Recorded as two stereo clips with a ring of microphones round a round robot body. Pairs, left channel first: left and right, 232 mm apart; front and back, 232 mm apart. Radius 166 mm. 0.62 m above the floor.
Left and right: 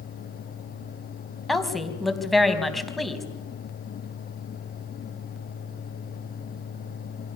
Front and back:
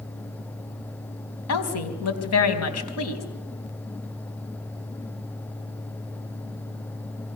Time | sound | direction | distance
1.5 | a woman speaking | straight ahead | 4 m